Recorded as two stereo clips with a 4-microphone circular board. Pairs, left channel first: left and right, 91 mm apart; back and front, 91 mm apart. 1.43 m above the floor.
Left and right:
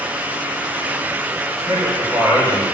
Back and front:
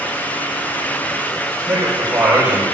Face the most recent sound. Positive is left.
turn(degrees=-50)